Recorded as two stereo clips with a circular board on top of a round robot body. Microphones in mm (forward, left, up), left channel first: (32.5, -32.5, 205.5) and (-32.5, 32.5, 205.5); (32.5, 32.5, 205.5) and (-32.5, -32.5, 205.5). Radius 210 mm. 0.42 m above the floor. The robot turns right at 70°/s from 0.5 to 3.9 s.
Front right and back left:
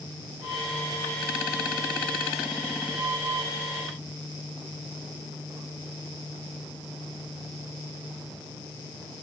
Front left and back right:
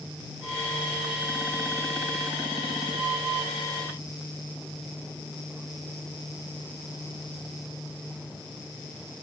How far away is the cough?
No cough in this recording.